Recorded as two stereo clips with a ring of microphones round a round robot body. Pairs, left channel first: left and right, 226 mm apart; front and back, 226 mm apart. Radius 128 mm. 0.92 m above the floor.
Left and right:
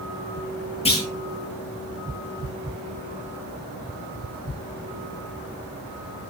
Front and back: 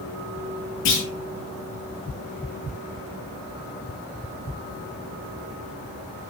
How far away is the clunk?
About 9 m.